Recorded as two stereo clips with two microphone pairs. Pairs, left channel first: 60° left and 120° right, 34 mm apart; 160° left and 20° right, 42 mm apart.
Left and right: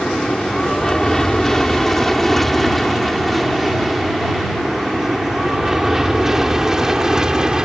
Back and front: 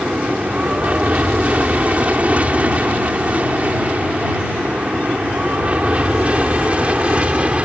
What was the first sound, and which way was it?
An aircraft, 5° left.